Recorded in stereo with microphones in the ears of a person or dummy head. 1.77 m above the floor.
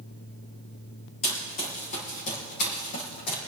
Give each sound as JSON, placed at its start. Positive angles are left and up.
{"t": 1.2, "sound": "running footsteps", "side_deg": 40, "distance_m": 4.0}